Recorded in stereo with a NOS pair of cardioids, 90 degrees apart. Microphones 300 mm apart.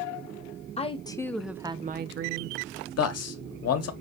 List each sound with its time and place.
0.8 s a woman speaking: 20° left, 0.9 m; by 2.6 s 75° right, 0.6 m
3.0 s a man speaking: 60° left, 1.0 m